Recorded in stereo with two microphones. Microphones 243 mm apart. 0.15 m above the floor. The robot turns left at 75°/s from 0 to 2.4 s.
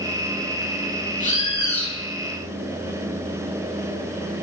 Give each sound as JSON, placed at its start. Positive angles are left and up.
{"t": 1.2, "sound": "a bird", "azimuth_deg": 55, "distance_m": 0.5}